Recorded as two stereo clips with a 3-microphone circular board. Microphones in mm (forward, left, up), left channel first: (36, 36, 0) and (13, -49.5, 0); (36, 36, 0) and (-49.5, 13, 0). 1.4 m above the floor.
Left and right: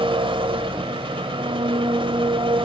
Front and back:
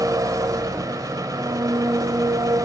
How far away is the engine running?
About 2.5 m.